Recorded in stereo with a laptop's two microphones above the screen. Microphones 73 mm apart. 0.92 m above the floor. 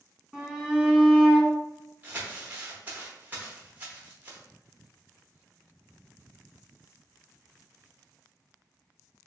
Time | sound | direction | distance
0.3 | a shout | centre (ahead or behind) | 1.1 m
2.0 | crumpling | 20° right (ahead or behind) | 0.7 m